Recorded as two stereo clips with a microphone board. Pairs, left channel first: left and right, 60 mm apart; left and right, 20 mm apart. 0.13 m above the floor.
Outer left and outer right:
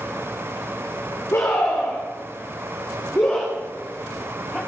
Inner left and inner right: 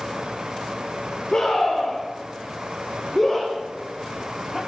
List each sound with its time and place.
1.3 s a scream: 50° left (ahead or behind), 10 m; by 4.6 s 15° left (ahead or behind), 7 m